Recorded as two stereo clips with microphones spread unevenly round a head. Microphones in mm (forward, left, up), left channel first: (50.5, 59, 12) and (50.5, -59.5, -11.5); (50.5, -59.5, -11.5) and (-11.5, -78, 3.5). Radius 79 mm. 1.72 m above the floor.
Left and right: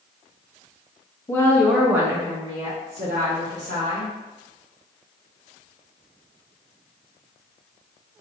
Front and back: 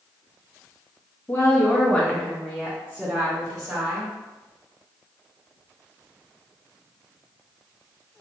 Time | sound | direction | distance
1.3 | a woman speaking | 85° left | 0.6 m